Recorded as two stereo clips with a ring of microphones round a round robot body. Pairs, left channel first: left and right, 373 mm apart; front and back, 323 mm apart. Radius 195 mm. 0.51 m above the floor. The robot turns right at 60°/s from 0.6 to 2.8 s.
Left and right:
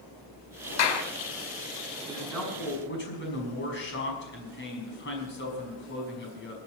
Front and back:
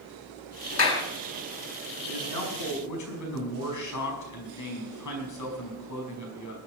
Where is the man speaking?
15° right, 5 m; by 6.6 s 30° left, 5 m.